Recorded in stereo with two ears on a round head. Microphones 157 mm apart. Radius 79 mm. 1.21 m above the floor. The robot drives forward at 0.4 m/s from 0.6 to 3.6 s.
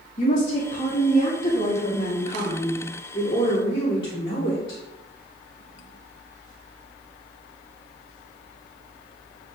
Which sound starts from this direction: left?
A woman speaking, at 0.2 s.